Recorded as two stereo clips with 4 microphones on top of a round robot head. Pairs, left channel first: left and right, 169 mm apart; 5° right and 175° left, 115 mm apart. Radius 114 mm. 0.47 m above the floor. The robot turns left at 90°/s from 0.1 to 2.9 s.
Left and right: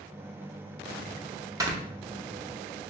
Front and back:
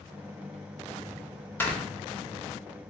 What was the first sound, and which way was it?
Snoring, 50° right.